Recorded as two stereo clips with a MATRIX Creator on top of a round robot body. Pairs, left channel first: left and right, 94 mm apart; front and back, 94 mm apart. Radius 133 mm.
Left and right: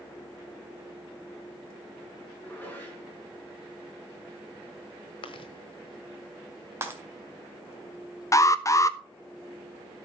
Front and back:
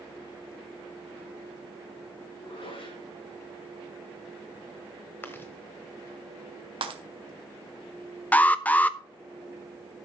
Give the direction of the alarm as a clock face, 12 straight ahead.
10 o'clock.